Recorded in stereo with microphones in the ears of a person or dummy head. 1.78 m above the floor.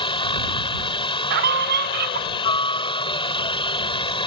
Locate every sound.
0.0 s a helicopter: 25° left (ahead or behind)
1.3 s a scream: 45° right (ahead or behind)